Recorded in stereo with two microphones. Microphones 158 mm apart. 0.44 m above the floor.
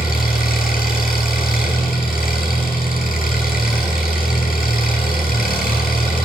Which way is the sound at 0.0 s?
65° left (ahead or behind).